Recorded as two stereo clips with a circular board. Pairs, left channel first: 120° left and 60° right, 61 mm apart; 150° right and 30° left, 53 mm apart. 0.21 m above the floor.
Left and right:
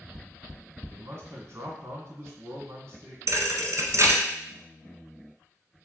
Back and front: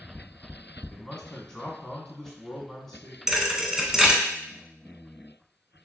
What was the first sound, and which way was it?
A man speaking, 80° right.